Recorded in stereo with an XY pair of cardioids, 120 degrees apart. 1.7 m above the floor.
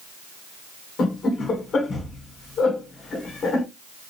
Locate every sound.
1.0 s laughter: 45° left, 1.4 m